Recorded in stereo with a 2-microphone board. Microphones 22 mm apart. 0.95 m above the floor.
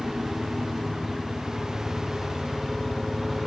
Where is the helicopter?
10° right (ahead or behind); by 3.5 s centre (ahead or behind).